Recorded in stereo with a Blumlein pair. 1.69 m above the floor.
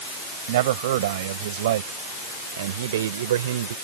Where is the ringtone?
I don't hear a ringtone.